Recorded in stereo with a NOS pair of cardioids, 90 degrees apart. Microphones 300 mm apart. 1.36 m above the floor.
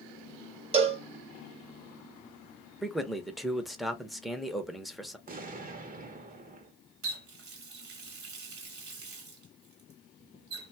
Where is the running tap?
50° right, 1.3 m.